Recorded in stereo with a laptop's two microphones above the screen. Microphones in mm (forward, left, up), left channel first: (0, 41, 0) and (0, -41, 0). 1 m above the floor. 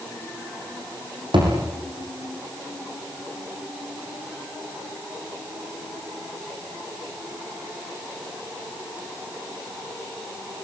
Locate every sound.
1.3 s a thud: 80° right, 7.5 m